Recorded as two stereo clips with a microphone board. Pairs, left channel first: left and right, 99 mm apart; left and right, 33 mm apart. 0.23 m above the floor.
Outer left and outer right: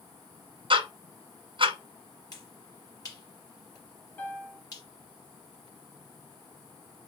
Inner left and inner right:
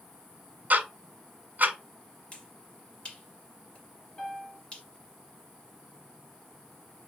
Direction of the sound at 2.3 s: 35° left (ahead or behind).